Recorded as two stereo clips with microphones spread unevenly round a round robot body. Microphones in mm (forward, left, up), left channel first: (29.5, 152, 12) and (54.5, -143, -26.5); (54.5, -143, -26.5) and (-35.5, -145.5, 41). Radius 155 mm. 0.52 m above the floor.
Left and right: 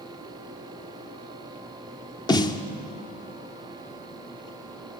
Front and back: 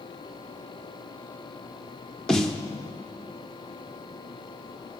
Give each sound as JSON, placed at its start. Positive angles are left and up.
{"t": 2.3, "sound": "a snare drum", "azimuth_deg": 15, "distance_m": 0.9}